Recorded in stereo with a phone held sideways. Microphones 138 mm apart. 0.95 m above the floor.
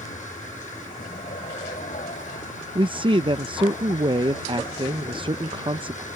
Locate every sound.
0.0 s a vehicle: 65° left (ahead or behind)
2.8 s a man speaking: 40° right (ahead or behind)